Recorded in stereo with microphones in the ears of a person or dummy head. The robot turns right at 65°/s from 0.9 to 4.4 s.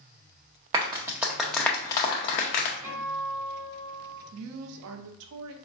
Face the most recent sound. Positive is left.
turn(degrees=-65)  # may be behind; listen again after turning